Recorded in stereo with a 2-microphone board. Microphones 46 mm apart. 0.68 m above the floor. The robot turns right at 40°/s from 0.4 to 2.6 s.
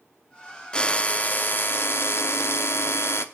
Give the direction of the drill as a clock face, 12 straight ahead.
11 o'clock.